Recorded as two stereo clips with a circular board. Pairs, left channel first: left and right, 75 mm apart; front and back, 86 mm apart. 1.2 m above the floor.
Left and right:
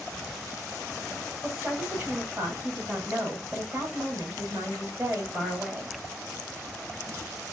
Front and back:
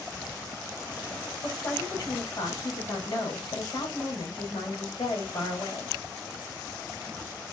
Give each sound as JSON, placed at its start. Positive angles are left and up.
{"t": 1.4, "sound": "a woman speaking", "azimuth_deg": -40, "distance_m": 2.5}